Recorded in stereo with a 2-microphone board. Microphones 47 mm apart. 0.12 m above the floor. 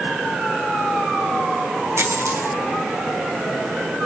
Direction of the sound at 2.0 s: 85° right.